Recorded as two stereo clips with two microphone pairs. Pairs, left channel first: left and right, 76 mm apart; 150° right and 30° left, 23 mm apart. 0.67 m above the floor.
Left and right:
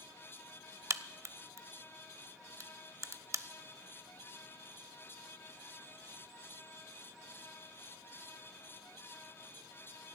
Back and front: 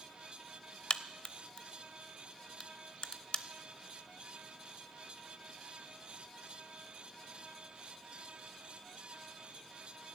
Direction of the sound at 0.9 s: 125° right.